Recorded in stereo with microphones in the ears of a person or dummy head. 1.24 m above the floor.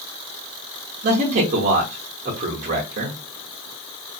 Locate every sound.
1.0 s a man speaking: 35° right (ahead or behind), 0.8 m